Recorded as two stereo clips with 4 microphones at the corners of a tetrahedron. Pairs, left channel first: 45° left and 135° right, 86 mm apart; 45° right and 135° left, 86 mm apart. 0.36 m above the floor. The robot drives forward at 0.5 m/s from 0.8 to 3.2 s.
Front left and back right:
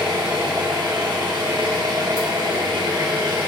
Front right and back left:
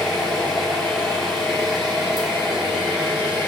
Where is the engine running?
130° right, 4.5 m; by 3.5 s 140° right, 5.5 m.